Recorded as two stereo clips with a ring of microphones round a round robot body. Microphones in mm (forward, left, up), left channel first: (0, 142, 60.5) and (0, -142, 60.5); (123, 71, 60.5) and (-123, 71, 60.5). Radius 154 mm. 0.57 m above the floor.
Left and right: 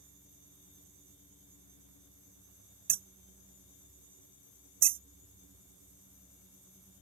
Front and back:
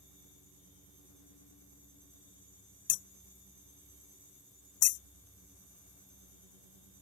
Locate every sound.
2.9 s hammering: 30° right